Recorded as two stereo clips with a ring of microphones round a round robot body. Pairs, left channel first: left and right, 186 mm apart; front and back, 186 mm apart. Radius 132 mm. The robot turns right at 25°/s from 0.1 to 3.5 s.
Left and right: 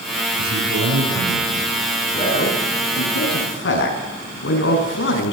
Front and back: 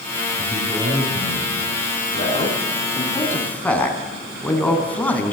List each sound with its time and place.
0.4 s a man speaking: 110° right, 8 m; by 1.7 s 80° right, 8 m
2.1 s a man speaking: 50° left, 6 m; by 5.3 s 80° left, 6 m